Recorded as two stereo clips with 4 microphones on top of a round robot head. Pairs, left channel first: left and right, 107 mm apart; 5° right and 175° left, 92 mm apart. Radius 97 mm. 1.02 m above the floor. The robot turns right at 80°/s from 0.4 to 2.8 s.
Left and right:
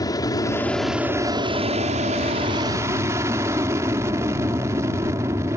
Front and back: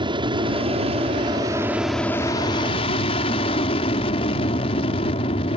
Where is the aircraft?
145° left; by 5.6 s 25° right.